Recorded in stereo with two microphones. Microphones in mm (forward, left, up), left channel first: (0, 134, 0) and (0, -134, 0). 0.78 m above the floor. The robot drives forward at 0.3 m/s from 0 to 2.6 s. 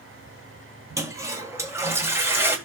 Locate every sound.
1.0 s a toilet flushing: 10° right (ahead or behind), 1.6 m